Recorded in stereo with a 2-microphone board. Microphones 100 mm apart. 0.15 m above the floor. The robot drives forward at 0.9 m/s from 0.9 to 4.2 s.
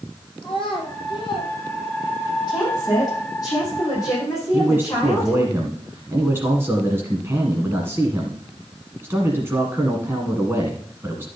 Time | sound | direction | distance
0.4 | a child speaking | 55° left (ahead or behind) | 3 m
2.5 | a woman speaking | 45° left (ahead or behind) | 4.5 m
4.5 | a man speaking | 20° right (ahead or behind) | 1.3 m